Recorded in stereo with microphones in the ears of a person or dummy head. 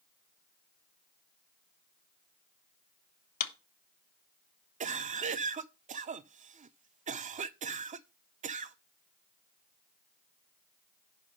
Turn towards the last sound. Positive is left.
turn(degrees=-35)  # may be behind; listen again after turning